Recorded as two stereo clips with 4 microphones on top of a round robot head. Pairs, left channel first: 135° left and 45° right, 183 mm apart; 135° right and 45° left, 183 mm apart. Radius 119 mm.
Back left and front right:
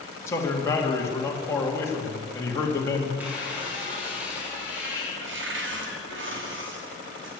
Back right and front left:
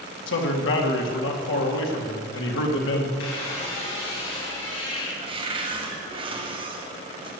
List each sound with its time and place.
0.3 s a man speaking: 150° right, 2.5 m
3.2 s a squeak: 125° right, 5 m
5.2 s a cupboard door: 20° right, 2.5 m